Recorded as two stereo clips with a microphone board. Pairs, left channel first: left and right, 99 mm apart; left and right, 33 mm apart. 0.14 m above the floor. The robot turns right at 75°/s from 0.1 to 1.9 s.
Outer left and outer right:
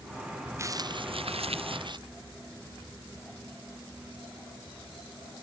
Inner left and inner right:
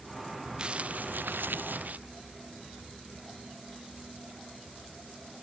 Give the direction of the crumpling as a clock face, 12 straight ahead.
5 o'clock.